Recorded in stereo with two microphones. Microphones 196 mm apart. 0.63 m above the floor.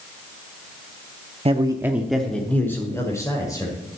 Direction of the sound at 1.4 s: 30° right (ahead or behind).